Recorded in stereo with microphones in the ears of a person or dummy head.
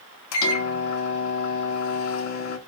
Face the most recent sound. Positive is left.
turn(degrees=80)